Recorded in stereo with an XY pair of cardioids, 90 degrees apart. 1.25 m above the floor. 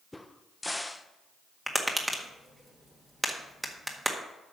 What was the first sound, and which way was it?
A crack, 15° left.